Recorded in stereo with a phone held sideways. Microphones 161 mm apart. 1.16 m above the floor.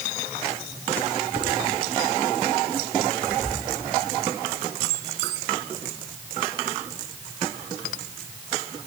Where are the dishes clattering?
25° left (ahead or behind), 7.5 m.